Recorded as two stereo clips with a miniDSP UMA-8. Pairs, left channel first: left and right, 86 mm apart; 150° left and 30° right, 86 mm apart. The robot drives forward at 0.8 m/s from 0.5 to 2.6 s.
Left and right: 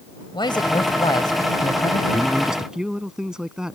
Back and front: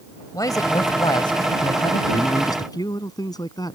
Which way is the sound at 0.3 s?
110° left.